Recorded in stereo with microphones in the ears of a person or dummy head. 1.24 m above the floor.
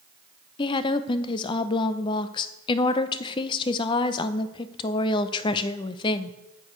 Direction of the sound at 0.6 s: 30° left (ahead or behind).